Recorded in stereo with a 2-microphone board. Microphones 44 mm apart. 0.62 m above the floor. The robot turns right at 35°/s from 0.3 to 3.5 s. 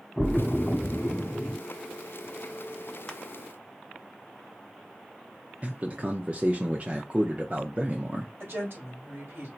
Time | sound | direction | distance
0.2 | a splash | 5° right (ahead or behind) | 1.4 m
3.1 | crushing | 15° left (ahead or behind) | 0.8 m
5.6 | a man speaking | 30° right (ahead or behind) | 0.7 m
8.4 | a woman speaking | 60° right (ahead or behind) | 3 m